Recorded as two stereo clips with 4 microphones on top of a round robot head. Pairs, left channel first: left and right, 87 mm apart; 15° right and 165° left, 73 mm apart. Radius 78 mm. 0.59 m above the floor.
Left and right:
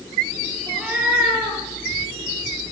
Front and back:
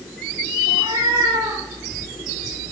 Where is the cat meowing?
165° right, 6 m.